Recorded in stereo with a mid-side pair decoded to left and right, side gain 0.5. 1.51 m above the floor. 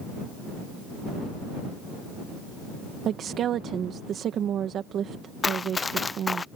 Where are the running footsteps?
25° left.